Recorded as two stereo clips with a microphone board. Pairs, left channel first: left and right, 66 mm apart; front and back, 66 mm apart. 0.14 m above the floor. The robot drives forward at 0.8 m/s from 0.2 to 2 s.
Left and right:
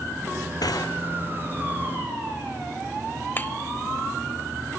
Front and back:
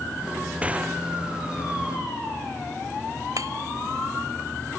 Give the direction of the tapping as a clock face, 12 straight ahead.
7 o'clock.